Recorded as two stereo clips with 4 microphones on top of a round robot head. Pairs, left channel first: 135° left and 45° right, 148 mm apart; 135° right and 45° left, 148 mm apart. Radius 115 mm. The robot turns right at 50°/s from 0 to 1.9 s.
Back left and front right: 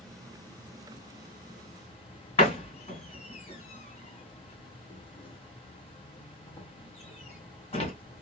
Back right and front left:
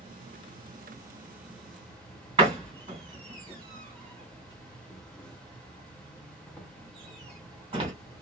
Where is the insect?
50° left, 1.0 m; by 8.2 s 145° left, 1.0 m.